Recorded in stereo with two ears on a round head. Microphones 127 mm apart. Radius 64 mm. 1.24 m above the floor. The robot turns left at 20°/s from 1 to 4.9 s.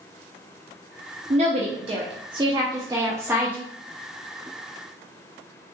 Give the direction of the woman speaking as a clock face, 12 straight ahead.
4 o'clock.